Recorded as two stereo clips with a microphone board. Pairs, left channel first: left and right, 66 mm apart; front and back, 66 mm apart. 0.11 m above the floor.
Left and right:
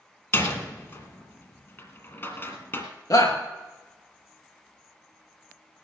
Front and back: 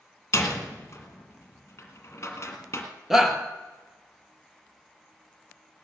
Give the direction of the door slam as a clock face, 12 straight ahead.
11 o'clock.